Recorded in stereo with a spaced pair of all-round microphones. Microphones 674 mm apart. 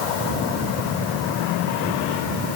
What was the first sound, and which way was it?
Only background noise.